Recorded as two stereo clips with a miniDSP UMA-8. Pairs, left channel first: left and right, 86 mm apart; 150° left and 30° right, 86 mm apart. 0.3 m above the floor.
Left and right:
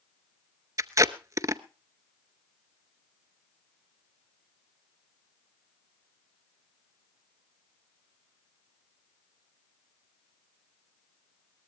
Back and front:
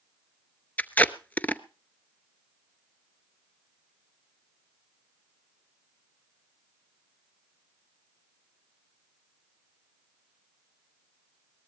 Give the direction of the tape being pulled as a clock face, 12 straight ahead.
5 o'clock.